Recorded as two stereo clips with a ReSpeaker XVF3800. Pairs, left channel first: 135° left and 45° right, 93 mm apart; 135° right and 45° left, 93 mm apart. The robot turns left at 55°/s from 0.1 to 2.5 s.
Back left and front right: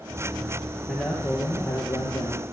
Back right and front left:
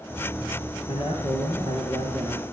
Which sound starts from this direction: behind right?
A man speaking, at 0.9 s.